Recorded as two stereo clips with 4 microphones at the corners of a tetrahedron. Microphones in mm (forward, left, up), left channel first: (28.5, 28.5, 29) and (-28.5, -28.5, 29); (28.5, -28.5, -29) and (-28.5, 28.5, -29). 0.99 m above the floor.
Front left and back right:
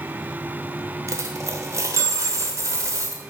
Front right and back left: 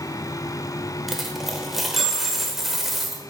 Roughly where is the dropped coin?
Behind right.